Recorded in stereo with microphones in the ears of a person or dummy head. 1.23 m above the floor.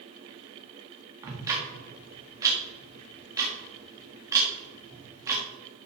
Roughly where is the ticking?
Right.